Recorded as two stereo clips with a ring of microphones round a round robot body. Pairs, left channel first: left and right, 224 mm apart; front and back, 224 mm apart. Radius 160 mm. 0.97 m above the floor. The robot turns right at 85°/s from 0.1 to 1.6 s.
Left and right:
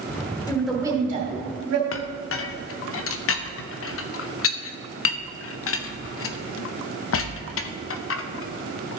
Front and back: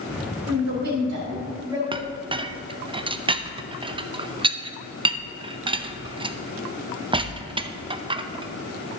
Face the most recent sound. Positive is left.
turn(degrees=110)